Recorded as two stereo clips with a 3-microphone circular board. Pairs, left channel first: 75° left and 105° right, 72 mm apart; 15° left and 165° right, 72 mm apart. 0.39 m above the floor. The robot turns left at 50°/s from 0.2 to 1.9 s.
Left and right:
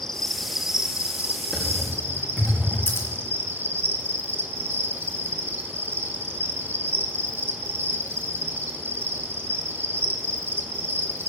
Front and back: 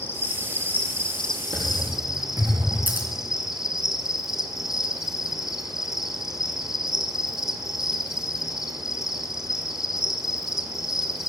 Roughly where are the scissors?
Behind left.